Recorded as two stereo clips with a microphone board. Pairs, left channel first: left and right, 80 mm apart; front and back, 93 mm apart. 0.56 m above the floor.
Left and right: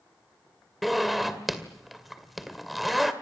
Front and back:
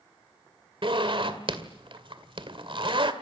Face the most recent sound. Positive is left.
turn(degrees=180)